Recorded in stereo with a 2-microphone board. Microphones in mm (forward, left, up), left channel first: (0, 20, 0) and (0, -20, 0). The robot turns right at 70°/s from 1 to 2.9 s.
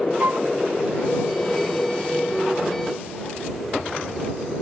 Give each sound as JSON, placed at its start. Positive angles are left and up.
{"t": 0.2, "sound": "a flute", "side_deg": -60}